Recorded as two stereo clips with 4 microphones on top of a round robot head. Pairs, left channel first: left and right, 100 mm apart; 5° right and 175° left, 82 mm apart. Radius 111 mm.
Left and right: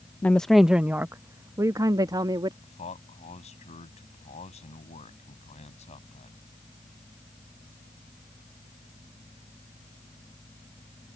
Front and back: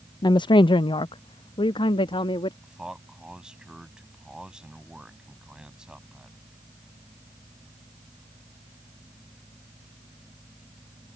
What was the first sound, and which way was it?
A woman speaking, 20° left.